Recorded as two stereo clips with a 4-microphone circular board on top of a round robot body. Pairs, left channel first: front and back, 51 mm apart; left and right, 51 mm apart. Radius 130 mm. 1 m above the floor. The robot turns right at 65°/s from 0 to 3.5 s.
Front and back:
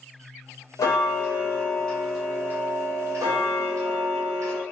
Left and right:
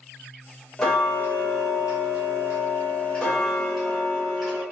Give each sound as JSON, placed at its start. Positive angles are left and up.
{"t": 0.8, "sound": "ticking", "azimuth_deg": 10, "distance_m": 0.7}